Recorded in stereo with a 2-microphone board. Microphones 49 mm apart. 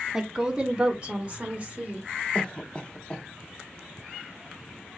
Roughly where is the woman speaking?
Centre.